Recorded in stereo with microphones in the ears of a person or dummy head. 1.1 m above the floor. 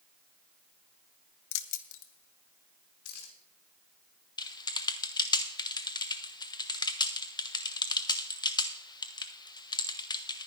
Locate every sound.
1.5 s keys jangling: 65° left (ahead or behind), 0.7 m; by 3.3 s 90° left, 3 m
4.4 s typing on a keyboard: 25° left (ahead or behind), 0.6 m